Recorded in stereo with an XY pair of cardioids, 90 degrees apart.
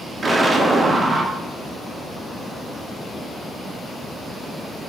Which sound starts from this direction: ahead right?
An explosion, at 0.2 s.